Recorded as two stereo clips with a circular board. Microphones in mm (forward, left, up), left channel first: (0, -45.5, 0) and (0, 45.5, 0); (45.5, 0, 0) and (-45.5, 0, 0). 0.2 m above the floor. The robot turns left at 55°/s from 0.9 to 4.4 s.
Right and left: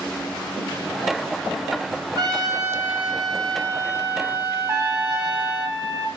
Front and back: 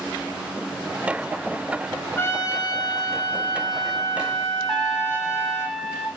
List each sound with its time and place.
2.2 s a trumpet: 60° left, 1.6 m; by 5.7 s 60° right, 1.6 m
4.7 s a trumpet: 100° left, 1.7 m